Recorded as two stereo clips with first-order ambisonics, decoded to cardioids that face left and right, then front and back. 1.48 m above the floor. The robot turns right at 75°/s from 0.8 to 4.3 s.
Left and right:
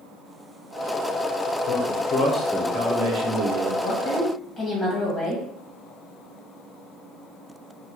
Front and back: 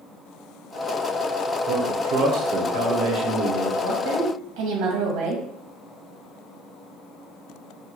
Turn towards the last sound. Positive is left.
turn(degrees=165)